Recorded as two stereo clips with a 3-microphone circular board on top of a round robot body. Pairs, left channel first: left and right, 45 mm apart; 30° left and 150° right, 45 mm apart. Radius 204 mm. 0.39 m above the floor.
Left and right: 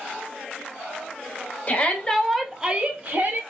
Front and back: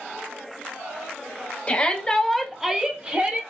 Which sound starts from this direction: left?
A shout, at 1.7 s.